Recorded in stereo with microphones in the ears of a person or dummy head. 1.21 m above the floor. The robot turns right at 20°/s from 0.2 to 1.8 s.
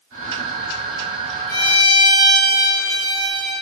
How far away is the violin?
About 2 m.